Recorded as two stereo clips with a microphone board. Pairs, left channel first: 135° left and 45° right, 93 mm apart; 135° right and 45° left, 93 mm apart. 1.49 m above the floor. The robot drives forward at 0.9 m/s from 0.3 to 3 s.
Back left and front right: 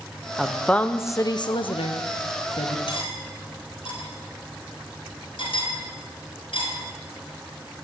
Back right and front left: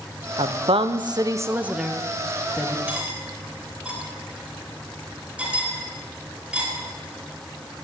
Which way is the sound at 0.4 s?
40° left.